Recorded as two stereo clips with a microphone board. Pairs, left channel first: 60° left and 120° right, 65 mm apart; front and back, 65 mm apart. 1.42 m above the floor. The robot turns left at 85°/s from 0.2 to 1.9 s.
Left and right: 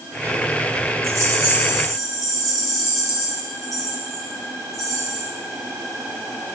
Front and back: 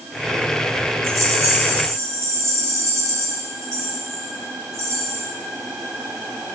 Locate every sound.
1.0 s a rattle: 140° right, 1.8 m; by 5.3 s 145° left, 1.8 m